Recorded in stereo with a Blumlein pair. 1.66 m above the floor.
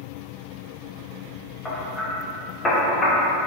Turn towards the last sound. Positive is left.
turn(degrees=15)